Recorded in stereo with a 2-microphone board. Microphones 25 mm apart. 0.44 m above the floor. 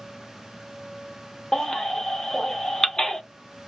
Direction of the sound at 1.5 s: 20° left (ahead or behind).